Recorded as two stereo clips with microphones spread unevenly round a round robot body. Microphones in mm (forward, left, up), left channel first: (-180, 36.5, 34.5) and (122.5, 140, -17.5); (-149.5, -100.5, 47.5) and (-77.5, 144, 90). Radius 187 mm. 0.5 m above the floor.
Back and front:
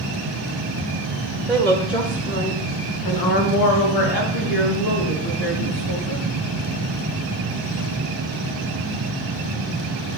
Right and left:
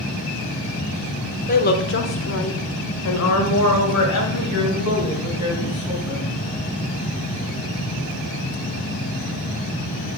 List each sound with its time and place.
1.5 s a woman speaking: 60° right, 1.1 m; by 6.3 s 130° right, 4.5 m